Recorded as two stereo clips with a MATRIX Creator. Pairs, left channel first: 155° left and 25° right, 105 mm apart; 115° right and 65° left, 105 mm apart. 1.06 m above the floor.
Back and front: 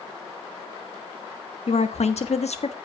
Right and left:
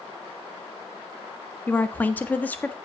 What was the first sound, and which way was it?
A woman speaking, 175° left.